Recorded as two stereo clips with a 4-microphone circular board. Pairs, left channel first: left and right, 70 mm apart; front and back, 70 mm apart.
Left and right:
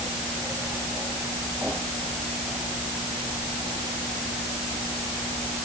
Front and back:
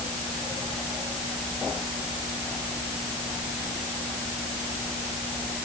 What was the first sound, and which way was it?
Only background noise.